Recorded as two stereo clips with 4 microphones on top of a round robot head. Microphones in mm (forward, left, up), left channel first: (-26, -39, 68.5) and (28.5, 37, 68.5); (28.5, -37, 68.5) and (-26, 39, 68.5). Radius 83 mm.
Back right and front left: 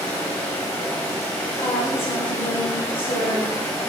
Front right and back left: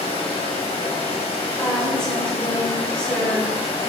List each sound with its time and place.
0.0 s running water: 60° right, 1.8 m
1.6 s a woman speaking: 135° right, 3 m